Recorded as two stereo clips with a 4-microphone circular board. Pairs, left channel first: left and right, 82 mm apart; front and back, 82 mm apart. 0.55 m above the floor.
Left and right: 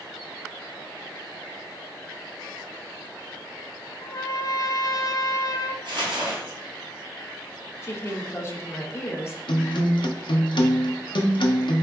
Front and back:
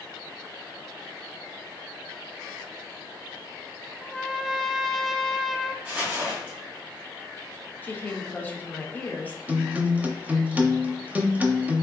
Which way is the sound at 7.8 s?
55° left.